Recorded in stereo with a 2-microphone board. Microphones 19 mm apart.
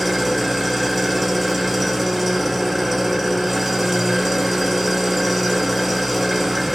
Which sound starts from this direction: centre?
An engine running, at 0.0 s.